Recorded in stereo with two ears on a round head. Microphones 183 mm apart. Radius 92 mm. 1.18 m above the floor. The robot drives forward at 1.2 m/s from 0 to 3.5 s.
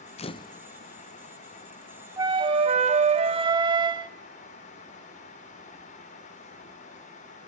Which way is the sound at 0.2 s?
30° left (ahead or behind).